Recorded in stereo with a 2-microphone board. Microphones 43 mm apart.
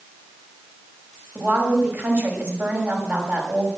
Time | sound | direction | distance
1.4 | a woman speaking | 45° right (ahead or behind) | 6 m